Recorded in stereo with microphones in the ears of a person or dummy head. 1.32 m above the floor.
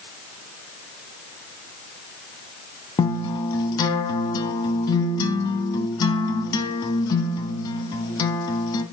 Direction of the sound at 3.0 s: 25° left (ahead or behind).